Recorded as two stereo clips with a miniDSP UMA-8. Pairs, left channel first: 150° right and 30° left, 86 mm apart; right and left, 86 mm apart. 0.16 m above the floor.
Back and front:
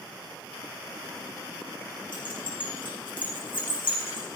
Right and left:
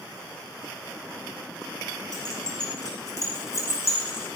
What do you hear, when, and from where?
2.1 s keys jangling: 130° right, 6 m; by 4.3 s 145° right, 7 m